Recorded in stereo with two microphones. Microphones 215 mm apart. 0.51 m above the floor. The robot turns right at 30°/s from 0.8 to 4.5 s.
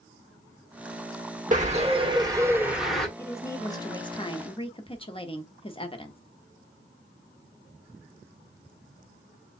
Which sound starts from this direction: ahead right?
A bird, at 1.5 s.